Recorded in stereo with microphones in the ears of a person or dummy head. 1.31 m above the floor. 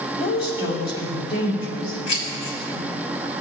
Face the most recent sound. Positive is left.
turn(degrees=35)  # may be behind; listen again after turning